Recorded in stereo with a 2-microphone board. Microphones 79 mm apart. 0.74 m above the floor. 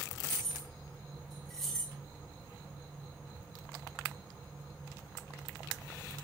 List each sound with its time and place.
0.2 s keys jangling: 5° left (ahead or behind), 5 m